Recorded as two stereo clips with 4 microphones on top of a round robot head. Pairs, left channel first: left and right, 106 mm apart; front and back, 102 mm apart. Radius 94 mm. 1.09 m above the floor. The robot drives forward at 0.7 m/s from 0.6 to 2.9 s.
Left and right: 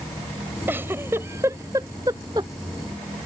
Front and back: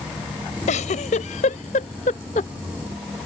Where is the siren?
No siren in this recording.